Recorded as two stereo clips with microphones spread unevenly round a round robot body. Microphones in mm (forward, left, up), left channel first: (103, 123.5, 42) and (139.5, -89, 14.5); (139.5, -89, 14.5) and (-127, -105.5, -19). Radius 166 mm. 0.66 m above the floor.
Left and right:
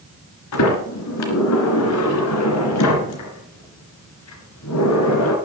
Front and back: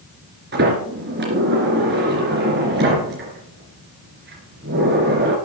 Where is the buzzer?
No buzzer in this recording.